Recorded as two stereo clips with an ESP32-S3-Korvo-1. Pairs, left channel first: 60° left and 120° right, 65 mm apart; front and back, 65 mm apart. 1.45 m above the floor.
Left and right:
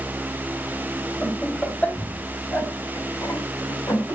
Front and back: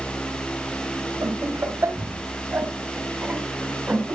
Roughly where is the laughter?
Behind left.